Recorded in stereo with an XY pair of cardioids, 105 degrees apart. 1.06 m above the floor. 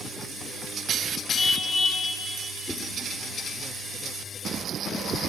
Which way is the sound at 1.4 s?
25° left.